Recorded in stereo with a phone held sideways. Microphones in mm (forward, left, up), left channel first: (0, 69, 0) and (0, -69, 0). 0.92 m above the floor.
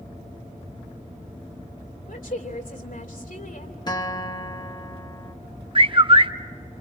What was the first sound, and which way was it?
A woman speaking, 85° left.